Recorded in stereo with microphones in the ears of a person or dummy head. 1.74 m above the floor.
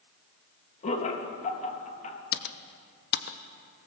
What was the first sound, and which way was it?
Laughter, 45° left (ahead or behind).